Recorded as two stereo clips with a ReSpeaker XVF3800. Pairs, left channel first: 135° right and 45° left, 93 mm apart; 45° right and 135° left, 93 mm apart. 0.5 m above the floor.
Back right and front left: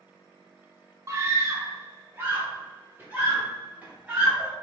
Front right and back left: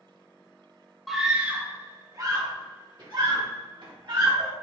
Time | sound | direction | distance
1.1 | a scream | 45° left | 0.7 m